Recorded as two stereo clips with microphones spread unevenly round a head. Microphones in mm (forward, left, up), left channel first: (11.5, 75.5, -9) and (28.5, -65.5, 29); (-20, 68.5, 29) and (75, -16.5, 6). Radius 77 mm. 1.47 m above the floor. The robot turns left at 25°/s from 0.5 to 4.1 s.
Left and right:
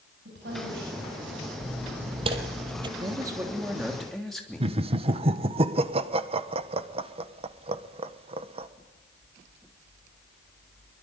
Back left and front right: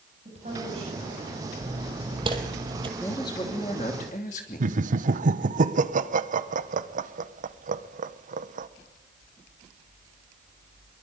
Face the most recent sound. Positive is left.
turn(degrees=-30)